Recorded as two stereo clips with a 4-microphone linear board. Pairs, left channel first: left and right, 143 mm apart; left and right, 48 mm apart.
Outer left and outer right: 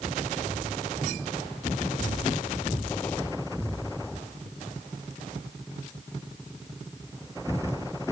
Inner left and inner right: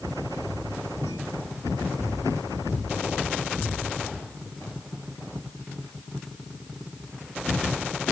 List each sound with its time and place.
Only background noise.